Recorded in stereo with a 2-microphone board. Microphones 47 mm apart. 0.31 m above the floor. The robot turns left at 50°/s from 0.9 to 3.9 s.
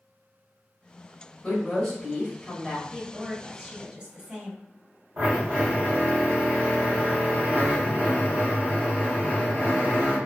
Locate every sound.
1.4 s a woman speaking: 15° left (ahead or behind), 1.6 m; by 2.8 s 15° right (ahead or behind), 1.6 m
2.9 s a woman speaking: 25° right (ahead or behind), 1.4 m; by 4.6 s 10° right (ahead or behind), 1.4 m
5.2 s a drill: 45° right (ahead or behind), 1.3 m